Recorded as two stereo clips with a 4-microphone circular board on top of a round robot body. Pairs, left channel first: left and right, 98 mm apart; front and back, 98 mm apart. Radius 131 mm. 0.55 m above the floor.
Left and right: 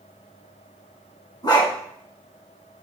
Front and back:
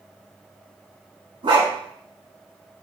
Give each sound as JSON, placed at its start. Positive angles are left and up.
{"t": 1.4, "sound": "a dog barking", "azimuth_deg": 140, "distance_m": 2.5}